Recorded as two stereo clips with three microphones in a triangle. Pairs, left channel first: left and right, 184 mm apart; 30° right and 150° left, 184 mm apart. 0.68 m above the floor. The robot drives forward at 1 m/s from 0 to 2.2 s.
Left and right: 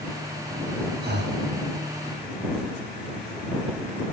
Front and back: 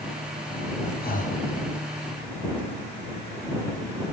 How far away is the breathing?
About 0.9 m.